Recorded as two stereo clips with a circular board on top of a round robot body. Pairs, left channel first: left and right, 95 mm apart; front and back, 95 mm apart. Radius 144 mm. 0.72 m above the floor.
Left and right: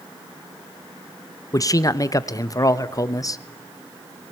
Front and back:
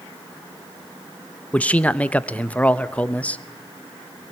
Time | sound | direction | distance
1.5 | a man speaking | 65° left | 1.2 m